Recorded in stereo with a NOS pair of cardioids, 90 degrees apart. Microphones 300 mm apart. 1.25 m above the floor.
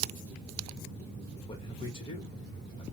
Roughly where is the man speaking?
Ahead.